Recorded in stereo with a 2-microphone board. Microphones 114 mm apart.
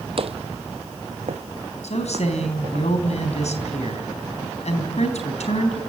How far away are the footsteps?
About 0.9 m.